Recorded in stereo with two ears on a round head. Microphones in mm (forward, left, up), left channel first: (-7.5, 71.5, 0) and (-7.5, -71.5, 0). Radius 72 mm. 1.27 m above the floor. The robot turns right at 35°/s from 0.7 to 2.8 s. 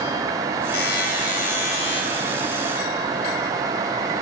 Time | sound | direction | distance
0.7 | a buzzer | 100° left | 3.5 m